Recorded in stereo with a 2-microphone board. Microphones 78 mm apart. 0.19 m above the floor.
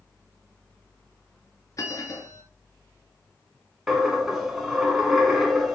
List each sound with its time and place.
1.8 s a bell: 45° left (ahead or behind), 0.9 m
3.9 s a dropped coin: 5° right (ahead or behind), 0.9 m